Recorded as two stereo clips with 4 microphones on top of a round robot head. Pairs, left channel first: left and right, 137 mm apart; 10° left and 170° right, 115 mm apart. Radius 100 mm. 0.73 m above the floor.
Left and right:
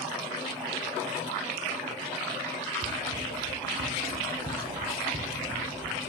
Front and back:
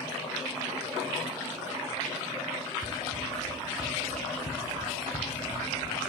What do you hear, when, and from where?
2.8 s running footsteps: 65° right, 3 m; by 6.0 s 30° right, 4.5 m